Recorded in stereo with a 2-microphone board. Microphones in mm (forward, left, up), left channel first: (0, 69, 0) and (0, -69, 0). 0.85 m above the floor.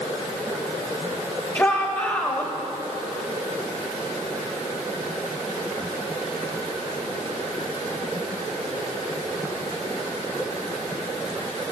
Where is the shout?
20° left (ahead or behind), 0.8 m.